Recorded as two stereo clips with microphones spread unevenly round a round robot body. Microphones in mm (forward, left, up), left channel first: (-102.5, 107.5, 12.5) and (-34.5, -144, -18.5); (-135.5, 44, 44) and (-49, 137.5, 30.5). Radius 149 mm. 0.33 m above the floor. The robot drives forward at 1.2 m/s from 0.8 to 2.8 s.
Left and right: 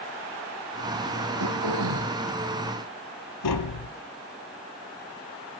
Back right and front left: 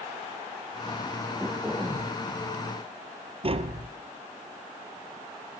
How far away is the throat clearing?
About 4 m.